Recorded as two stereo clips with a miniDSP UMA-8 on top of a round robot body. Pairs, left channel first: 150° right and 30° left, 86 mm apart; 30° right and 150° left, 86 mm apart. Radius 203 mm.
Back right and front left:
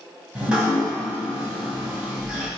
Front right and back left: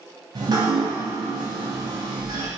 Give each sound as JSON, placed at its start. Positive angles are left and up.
{"t": 0.3, "sound": "dripping", "azimuth_deg": 110, "distance_m": 2.0}